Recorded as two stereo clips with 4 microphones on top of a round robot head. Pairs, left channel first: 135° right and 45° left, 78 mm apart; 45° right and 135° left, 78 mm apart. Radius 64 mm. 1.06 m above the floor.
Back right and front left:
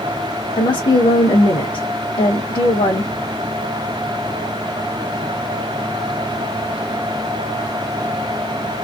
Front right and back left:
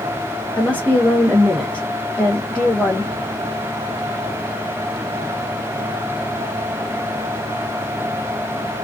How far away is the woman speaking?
About 1.1 m.